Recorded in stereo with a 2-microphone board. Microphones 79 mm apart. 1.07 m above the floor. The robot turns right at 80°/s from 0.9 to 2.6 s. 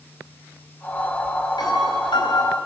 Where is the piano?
60° left, 5 m; by 2.6 s 140° left, 5 m.